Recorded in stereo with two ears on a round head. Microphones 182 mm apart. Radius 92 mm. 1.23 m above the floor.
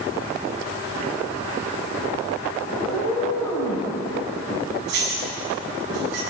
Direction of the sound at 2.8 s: 20° left (ahead or behind).